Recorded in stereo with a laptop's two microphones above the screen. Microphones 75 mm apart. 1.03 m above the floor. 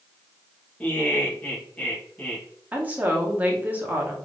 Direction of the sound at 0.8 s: 15° left (ahead or behind).